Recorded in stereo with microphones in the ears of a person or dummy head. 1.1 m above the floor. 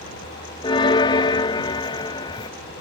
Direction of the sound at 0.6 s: 25° left (ahead or behind).